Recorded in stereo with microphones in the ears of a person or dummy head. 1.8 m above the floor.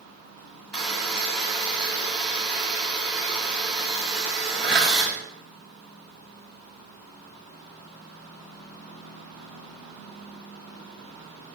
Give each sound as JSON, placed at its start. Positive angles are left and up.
{"t": 0.7, "sound": "a buzzer", "side_deg": -10, "distance_m": 1.3}